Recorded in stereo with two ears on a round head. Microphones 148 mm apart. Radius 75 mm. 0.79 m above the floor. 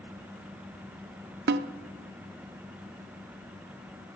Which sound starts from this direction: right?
A snare drum, at 1.5 s.